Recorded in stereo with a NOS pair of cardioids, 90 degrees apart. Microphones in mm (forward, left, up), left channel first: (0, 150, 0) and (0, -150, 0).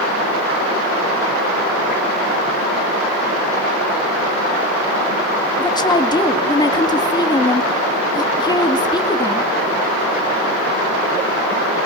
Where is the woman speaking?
15° left, 2 m.